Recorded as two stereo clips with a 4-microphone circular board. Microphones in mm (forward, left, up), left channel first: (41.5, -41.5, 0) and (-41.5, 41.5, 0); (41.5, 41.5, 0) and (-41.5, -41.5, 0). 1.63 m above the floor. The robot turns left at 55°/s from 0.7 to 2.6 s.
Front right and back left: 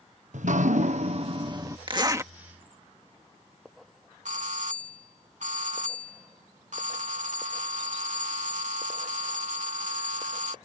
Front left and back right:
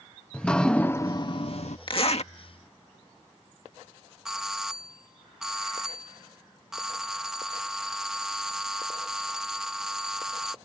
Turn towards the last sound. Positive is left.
turn(degrees=140)